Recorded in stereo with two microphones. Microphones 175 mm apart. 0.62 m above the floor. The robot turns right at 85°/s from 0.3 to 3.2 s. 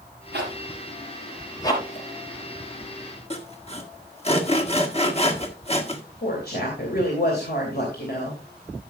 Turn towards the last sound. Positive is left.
turn(degrees=65)  # may be behind; listen again after turning